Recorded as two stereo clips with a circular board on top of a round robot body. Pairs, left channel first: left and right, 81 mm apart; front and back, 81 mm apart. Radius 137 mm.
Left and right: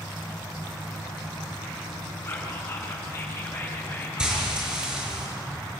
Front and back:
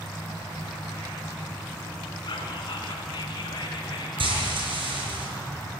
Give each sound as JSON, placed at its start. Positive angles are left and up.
{"t": 2.2, "sound": "whispering", "azimuth_deg": 35, "distance_m": 4.5}
{"t": 4.2, "sound": "frying", "azimuth_deg": -170, "distance_m": 5.5}